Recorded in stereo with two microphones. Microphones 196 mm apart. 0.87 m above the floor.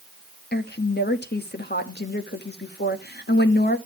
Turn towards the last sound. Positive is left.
turn(degrees=55)  # may be behind; listen again after turning